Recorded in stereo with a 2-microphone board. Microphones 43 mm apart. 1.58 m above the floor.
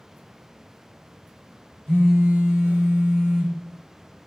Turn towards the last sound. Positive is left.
turn(degrees=-25)  # may be behind; listen again after turning